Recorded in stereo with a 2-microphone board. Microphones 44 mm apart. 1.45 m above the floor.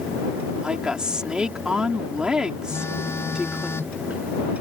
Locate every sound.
0.6 s a woman speaking: 20° right (ahead or behind)
2.7 s a phone buzzing: 90° left